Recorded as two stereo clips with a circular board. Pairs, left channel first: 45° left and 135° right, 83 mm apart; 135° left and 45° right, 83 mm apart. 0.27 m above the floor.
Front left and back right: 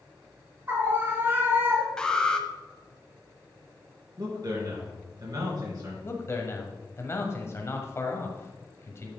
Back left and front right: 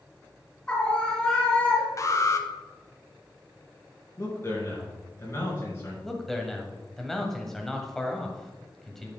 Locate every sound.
0.7 s a scream: 160° right, 1.3 m
2.0 s an alarm: 120° left, 0.9 m
4.2 s a man speaking: 170° right, 4 m
6.0 s a man speaking: 55° left, 1.5 m